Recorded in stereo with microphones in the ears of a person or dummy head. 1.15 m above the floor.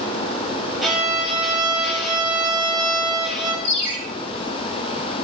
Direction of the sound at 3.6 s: 45° left (ahead or behind).